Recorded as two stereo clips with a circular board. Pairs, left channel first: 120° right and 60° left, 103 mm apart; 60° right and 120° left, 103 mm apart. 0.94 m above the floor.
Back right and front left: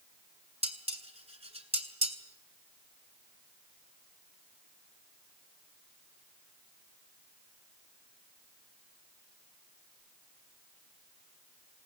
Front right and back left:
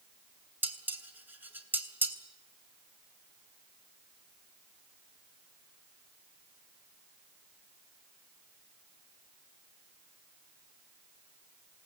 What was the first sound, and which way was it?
Dishes clattering, 50° left.